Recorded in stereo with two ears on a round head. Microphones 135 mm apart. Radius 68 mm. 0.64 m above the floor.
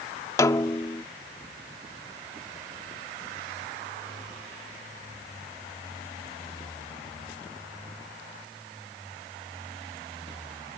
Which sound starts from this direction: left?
A snare drum, at 0.4 s.